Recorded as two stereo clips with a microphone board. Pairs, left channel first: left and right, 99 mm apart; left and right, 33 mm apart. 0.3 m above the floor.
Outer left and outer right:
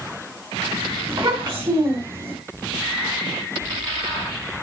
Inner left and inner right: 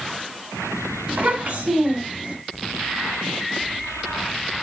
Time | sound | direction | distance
1.1 | a child speaking | 60° right (ahead or behind) | 1.8 m